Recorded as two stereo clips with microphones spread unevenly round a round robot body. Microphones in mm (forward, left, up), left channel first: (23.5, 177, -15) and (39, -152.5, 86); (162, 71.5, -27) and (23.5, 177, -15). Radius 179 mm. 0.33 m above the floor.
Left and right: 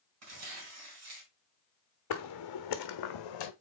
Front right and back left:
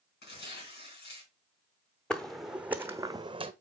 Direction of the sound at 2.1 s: 50° left.